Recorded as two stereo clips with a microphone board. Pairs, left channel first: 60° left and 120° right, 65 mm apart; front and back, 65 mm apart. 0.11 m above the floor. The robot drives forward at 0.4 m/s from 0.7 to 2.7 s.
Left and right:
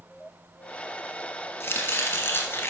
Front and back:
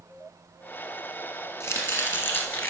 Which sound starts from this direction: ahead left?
Chopping, at 1.6 s.